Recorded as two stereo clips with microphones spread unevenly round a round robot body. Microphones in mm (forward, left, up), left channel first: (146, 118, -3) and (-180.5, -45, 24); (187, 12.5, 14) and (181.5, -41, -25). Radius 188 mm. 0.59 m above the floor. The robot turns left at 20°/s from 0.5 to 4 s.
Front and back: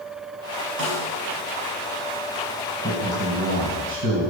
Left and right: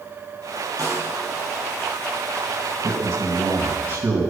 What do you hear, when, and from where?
0.8 s a snare drum: 95° right, 4.5 m; by 1.2 s 105° right, 4.5 m
2.8 s a man speaking: 80° right, 3 m; by 4.3 s 105° right, 3 m